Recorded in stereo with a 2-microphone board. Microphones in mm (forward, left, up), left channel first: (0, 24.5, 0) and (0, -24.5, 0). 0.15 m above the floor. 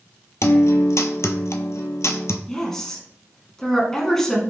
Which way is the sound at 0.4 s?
70° left (ahead or behind).